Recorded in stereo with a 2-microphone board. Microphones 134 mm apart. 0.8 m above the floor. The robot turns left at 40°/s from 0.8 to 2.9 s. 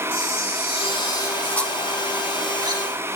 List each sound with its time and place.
0.1 s a camera shutter: 45° left, 2.5 m; by 2.8 s 40° right, 2.5 m